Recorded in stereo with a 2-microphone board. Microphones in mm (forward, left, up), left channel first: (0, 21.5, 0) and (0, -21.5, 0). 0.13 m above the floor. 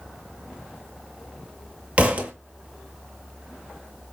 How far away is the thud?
About 0.7 m.